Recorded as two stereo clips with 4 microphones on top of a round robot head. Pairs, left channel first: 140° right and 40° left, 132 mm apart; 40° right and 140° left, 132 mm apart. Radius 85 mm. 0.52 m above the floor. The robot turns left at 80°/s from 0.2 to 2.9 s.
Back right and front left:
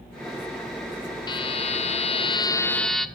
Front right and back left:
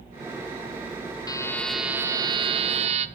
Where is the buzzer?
95° right, 1.2 m; by 3.1 s 135° left, 1.2 m.